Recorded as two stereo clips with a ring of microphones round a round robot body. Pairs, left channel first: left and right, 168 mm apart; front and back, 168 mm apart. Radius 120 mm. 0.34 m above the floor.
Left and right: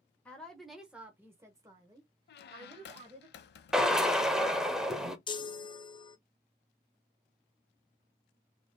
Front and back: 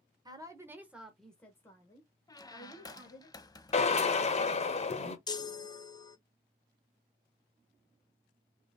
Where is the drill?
5° right, 1.0 m.